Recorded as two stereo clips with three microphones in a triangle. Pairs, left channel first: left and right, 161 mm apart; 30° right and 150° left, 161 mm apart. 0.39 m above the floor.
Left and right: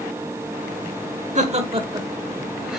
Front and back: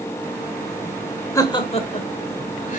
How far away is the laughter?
About 1.0 m.